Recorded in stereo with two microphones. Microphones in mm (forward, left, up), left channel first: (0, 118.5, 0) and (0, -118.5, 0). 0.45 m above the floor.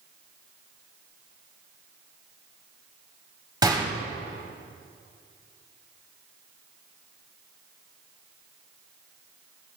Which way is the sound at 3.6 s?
15° right (ahead or behind).